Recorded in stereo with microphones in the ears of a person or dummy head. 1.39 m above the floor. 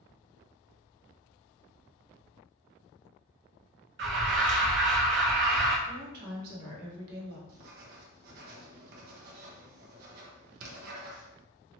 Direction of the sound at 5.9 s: 60° right (ahead or behind).